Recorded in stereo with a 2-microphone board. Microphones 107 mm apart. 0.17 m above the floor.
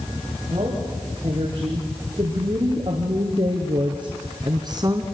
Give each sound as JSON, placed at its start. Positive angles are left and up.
{"t": 0.5, "sound": "a woman speaking", "side_deg": -45, "distance_m": 8.0}